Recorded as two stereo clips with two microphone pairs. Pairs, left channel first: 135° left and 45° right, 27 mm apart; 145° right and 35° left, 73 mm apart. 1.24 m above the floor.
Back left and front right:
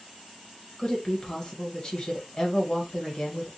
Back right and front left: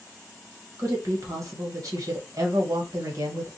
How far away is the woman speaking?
About 1.4 m.